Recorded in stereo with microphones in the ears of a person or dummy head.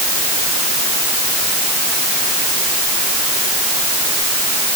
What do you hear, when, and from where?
Only background noise.